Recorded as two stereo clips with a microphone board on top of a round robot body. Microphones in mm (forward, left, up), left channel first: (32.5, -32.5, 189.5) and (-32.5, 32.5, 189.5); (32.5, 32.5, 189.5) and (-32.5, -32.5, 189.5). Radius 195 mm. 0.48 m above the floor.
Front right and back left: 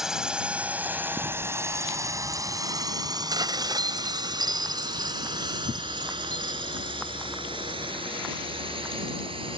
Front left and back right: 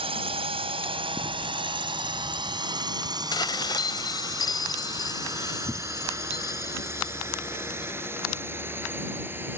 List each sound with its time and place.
0.0 s a drone: 140° right; by 9.6 s 155° left
3.3 s dishes clattering: 90° left